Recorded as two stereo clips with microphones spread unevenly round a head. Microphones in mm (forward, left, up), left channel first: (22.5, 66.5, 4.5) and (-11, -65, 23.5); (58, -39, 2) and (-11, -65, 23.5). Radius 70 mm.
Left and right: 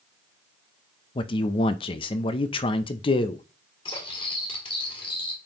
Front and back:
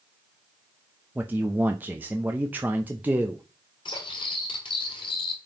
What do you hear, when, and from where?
1.1 s a man speaking: 120° left, 0.6 m
3.9 s cutlery clinking: 20° left, 1.9 m